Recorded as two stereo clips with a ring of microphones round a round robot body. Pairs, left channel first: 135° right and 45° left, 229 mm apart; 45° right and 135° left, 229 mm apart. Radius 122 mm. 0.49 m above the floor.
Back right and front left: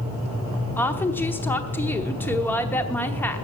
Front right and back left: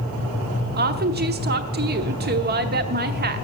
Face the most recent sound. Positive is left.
turn(degrees=150)